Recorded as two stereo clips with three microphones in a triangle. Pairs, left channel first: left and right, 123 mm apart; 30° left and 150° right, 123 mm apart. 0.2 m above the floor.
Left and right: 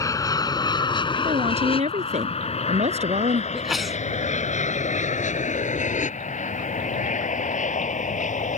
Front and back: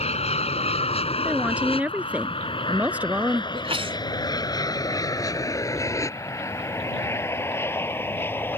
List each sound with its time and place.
0.0 s an aircraft: 30° left; by 8.6 s 105° left
1.2 s a woman speaking: 70° right
3.5 s a sneeze: straight behind